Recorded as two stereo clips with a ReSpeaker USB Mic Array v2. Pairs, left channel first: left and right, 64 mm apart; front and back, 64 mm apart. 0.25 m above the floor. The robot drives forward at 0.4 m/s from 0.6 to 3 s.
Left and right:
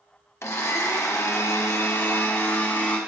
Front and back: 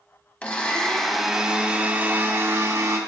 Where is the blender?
65° left, 0.7 m; by 3.0 s 150° left, 1.0 m.